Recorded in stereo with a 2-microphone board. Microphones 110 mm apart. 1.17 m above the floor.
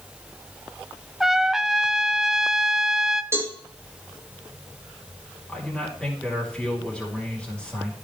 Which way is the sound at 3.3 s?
25° right (ahead or behind).